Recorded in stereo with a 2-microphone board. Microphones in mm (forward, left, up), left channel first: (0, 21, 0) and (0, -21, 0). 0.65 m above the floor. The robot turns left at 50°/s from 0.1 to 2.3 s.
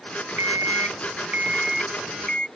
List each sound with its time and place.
0.4 s an alarm clock: 105° right; by 2.5 s 160° left